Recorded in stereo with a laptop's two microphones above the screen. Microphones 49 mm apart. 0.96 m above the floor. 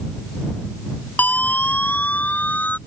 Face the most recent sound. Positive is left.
turn(degrees=35)  # may be behind; listen again after turning